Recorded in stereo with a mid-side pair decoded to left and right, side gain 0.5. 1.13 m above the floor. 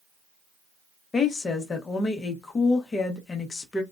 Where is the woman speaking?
35° left, 1.1 m.